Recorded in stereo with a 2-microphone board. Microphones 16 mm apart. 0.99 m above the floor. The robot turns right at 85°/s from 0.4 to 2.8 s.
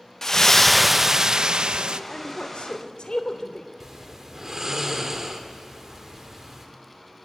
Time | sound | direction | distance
0.2 | a splash | 145° left | 0.6 m
2.1 | a woman speaking | 50° left (ahead or behind) | 3 m
3.8 | snoring | 25° right (ahead or behind) | 2.5 m